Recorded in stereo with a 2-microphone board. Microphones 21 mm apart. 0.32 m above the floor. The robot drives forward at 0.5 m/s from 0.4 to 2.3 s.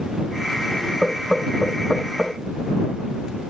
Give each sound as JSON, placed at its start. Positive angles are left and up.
{"t": 1.0, "sound": "knocking", "side_deg": -20, "distance_m": 0.9}